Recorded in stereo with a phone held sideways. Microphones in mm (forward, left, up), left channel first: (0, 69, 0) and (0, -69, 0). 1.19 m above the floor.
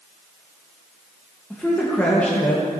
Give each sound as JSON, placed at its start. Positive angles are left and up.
{"t": 1.5, "sound": "a man speaking", "side_deg": 10, "distance_m": 1.3}